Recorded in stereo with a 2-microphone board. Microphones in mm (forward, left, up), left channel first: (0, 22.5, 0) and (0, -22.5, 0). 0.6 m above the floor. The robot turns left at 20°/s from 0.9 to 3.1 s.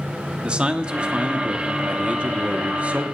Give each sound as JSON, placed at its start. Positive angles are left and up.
{"t": 0.4, "sound": "a man speaking", "azimuth_deg": -50, "distance_m": 1.0}